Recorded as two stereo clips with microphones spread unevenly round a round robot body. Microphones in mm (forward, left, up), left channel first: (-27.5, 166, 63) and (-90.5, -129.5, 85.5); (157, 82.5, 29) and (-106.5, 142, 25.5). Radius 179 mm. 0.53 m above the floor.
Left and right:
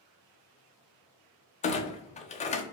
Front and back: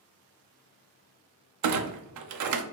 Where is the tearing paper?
I don't hear tearing paper.